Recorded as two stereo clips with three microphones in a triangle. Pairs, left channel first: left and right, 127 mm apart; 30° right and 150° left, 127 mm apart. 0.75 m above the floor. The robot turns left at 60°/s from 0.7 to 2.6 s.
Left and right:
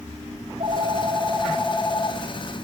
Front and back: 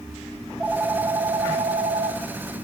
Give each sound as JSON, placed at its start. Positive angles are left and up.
{"t": 0.4, "sound": "a phone ringing", "azimuth_deg": -125, "distance_m": 3.0}